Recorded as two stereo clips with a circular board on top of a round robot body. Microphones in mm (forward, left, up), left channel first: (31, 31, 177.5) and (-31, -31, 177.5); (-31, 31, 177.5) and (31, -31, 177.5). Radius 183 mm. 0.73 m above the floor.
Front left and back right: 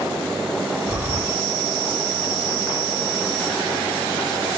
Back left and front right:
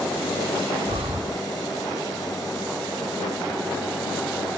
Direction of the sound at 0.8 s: 65° right.